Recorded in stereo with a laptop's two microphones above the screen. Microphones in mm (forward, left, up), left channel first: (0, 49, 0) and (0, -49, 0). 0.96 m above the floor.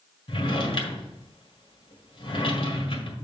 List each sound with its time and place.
0.3 s a drawer: 60° left (ahead or behind), 1.7 m